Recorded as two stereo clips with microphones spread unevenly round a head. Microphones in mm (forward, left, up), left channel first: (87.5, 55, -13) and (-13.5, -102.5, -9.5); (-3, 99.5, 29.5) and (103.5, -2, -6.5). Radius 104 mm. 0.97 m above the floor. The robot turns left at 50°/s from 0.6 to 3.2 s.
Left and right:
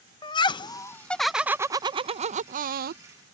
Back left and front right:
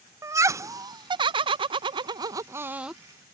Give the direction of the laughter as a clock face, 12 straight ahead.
12 o'clock.